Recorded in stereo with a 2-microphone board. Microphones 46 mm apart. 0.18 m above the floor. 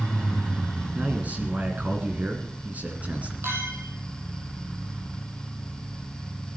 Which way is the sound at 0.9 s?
35° right (ahead or behind).